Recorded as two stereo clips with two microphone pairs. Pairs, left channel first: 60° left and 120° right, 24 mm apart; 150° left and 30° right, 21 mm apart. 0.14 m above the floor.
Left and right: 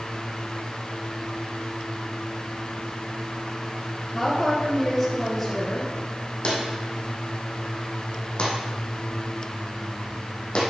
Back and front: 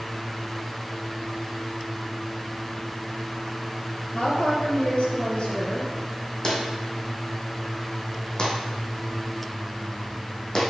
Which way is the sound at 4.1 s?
145° left.